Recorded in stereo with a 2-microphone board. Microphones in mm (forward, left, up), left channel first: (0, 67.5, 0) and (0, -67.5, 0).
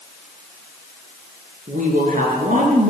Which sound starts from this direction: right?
A woman speaking, at 1.7 s.